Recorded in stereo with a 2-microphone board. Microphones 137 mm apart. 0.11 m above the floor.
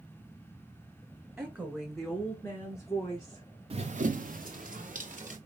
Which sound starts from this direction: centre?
A woman speaking, at 1.4 s.